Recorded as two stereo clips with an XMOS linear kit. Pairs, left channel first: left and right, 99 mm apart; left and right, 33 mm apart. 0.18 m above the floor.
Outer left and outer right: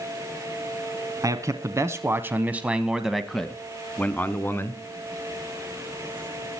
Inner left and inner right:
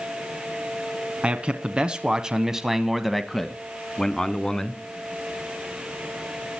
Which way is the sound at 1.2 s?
35° right (ahead or behind).